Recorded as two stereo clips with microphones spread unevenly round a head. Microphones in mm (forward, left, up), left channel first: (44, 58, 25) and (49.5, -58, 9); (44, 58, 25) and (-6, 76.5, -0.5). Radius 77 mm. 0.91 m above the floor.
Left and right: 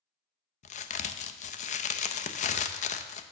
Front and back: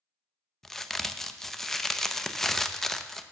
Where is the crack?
75° left, 0.6 m.